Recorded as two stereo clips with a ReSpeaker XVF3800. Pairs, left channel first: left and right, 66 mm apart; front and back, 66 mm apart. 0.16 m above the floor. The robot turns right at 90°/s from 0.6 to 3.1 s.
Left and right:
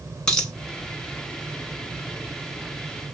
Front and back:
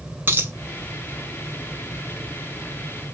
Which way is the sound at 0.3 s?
160° left.